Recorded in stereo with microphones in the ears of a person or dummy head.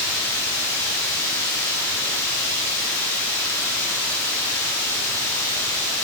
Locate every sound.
0.0 s running water: 15° left (ahead or behind), 2.0 m